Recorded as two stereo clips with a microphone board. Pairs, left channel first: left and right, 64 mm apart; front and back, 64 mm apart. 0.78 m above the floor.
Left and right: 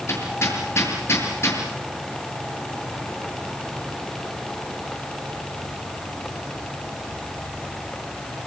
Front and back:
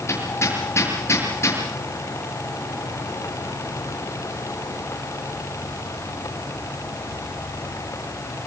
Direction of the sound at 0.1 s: 45° left.